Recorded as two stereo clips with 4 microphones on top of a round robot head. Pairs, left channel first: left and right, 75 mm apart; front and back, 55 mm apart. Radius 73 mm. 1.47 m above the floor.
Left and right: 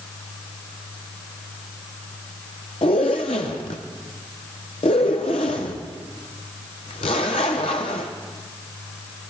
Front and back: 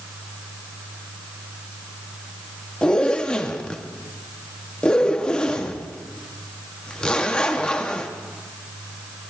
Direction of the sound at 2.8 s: 70° left.